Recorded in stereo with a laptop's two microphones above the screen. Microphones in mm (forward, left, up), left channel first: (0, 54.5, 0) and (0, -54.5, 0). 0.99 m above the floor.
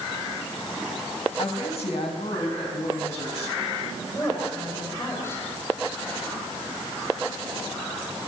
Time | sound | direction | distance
1.4 | a woman speaking | 65° left (ahead or behind) | 5 m
4.0 | a woman speaking | 25° left (ahead or behind) | 5.5 m